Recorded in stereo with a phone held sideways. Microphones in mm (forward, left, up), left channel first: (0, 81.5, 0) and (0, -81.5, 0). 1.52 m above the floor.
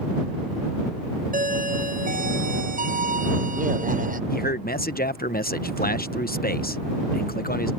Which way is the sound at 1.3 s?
55° right (ahead or behind).